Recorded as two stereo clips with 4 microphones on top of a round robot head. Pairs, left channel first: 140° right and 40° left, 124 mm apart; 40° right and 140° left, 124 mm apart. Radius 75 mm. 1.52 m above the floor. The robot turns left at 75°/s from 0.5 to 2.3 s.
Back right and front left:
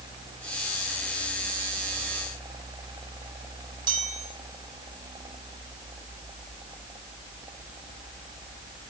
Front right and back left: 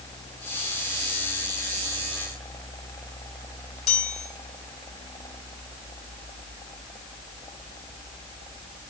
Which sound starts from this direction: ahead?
A chime, at 3.9 s.